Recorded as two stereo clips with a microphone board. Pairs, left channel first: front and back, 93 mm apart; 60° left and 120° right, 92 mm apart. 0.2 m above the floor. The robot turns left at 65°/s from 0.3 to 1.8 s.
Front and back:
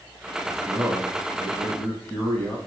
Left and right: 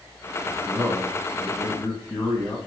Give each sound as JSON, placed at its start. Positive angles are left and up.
{"t": 0.5, "sound": "a man speaking", "azimuth_deg": 140, "distance_m": 1.1}